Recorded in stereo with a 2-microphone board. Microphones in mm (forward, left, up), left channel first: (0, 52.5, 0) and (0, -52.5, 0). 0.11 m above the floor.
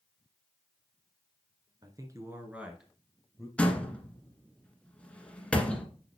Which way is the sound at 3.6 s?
10° left (ahead or behind).